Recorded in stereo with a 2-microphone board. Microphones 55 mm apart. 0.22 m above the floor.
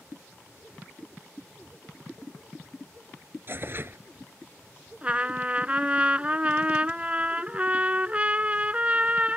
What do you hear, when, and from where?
3.5 s tearing paper: 40° right (ahead or behind)
5.0 s a trumpet: 25° right (ahead or behind)